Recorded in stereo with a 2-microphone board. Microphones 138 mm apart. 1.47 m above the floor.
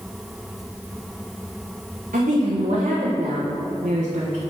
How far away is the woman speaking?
About 1.4 m.